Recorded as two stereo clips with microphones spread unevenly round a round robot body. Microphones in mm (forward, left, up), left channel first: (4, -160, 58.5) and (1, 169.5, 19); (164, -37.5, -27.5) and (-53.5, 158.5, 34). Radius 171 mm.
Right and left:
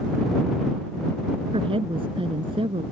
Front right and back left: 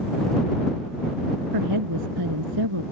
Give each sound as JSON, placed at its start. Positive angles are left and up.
{"t": 1.5, "sound": "a woman speaking", "azimuth_deg": 165}